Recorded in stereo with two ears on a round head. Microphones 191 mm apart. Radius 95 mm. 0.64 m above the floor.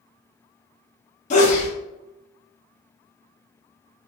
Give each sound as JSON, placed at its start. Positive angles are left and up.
{"t": 1.3, "sound": "a sneeze", "side_deg": 35, "distance_m": 0.7}